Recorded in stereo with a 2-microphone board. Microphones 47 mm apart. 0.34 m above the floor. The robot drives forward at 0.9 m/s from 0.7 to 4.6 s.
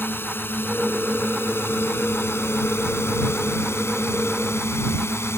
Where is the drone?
50° left (ahead or behind); by 5.4 s 65° left (ahead or behind).